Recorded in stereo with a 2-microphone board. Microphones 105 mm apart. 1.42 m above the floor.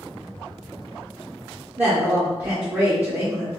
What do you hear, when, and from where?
1.8 s a woman speaking: 20° right (ahead or behind), 0.9 m